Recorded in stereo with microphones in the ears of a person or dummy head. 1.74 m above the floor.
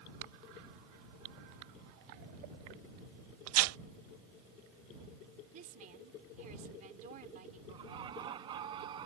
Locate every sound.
3.5 s tearing paper: 85° right
5.5 s a woman speaking: 45° right (ahead or behind)
7.7 s laughter: 25° right (ahead or behind)